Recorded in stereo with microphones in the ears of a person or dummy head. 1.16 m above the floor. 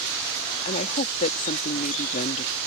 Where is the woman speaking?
40° left (ahead or behind).